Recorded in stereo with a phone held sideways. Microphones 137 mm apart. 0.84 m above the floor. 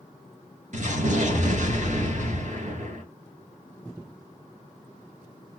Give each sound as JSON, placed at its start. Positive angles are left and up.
{"t": 0.7, "sound": "an explosion", "side_deg": -65, "distance_m": 2.0}